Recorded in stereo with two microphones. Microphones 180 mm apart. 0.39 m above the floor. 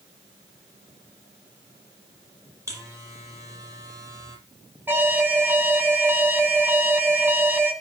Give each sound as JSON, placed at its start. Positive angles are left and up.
{"t": 2.7, "sound": "a buzzer", "side_deg": -15, "distance_m": 5.5}
{"t": 4.9, "sound": "an alarm", "side_deg": -10, "distance_m": 2.5}